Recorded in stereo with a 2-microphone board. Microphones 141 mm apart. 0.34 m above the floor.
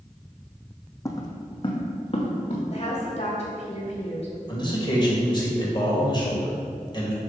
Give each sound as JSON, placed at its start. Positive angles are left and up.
{"t": 1.1, "sound": "footsteps", "side_deg": 20, "distance_m": 0.8}
{"t": 2.7, "sound": "a woman speaking", "side_deg": 50, "distance_m": 1.9}
{"t": 4.5, "sound": "a man speaking", "side_deg": 35, "distance_m": 1.5}